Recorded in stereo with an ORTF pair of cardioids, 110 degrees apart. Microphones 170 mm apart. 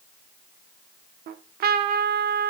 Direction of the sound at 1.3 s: 65° right.